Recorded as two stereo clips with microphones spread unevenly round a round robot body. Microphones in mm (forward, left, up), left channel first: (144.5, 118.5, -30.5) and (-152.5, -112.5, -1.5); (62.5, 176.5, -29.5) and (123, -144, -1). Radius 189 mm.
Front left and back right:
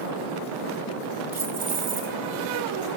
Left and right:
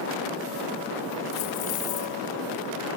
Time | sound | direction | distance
1.3 | keys jangling | 135° left | 3 m